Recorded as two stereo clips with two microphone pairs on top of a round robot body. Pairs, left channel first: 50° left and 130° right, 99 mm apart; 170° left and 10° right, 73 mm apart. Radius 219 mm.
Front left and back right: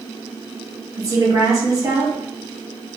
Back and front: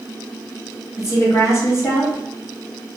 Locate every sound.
1.0 s a woman speaking: 160° right, 1.3 m